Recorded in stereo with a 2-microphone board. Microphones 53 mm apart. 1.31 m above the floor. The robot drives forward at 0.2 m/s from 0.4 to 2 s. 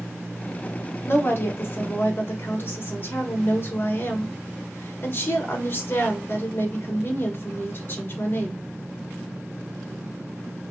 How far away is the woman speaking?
About 0.9 m.